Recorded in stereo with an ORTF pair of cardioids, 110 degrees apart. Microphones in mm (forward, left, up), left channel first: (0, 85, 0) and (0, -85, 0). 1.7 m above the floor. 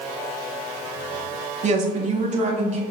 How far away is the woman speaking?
About 0.9 m.